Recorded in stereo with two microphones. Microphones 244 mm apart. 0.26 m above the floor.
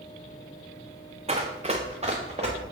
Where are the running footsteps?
30° right (ahead or behind), 1.0 m.